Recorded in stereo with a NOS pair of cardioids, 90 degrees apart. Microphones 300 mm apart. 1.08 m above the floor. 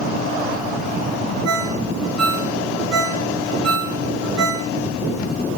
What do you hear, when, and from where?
1.4 s a ringtone: 55° right, 4.5 m